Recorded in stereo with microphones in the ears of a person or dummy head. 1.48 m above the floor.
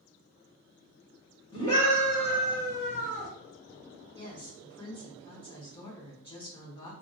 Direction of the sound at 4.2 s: 25° left (ahead or behind).